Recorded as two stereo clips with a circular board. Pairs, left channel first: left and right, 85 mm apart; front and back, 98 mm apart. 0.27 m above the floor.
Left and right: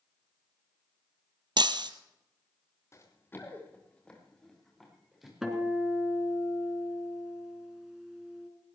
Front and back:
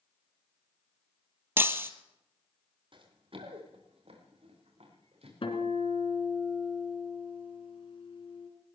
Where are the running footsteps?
150° left, 4 m; by 5.3 s 175° right, 6 m.